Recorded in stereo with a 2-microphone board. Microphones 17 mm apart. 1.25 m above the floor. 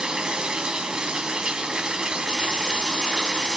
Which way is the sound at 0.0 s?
50° right (ahead or behind).